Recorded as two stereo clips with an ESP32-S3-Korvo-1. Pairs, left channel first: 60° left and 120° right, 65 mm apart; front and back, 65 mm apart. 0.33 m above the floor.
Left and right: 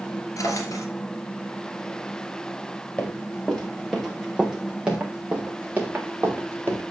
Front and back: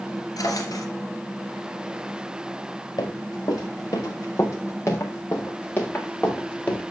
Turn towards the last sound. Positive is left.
turn(degrees=-65)